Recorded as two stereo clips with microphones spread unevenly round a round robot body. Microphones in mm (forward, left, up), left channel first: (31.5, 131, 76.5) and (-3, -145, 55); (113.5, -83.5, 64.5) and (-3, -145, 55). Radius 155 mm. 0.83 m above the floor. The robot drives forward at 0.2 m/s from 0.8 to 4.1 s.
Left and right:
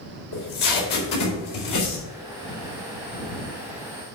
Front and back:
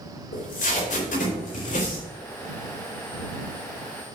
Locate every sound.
0.3 s tape being pulled: 60° left, 4.5 m